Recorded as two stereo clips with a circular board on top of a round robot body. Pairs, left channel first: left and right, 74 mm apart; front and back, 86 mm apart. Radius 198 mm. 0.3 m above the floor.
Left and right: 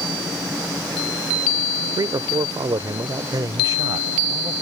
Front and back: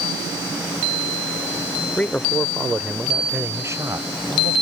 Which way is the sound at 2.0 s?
70° right.